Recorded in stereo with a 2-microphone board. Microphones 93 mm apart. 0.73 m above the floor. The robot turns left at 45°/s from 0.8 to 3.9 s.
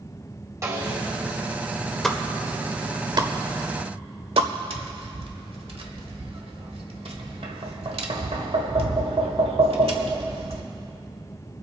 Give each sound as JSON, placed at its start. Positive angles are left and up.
{"t": 0.6, "sound": "a snare drum", "side_deg": -30, "distance_m": 2.0}
{"t": 2.0, "sound": "a pop", "side_deg": 5, "distance_m": 0.8}
{"t": 4.7, "sound": "tapping", "side_deg": -75, "distance_m": 1.3}